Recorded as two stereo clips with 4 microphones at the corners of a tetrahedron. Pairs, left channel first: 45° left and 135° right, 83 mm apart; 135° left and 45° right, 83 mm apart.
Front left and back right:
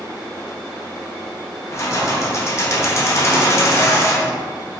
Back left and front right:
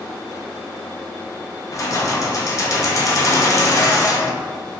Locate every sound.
1.7 s keys jangling: 95° left, 0.5 m